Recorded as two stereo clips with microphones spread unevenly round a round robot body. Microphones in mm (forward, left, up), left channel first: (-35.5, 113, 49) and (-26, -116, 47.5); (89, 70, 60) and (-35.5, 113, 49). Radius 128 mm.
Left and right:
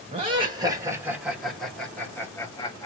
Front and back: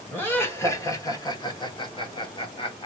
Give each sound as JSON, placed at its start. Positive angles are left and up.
{"t": 0.1, "sound": "laughter", "azimuth_deg": -90, "distance_m": 1.2}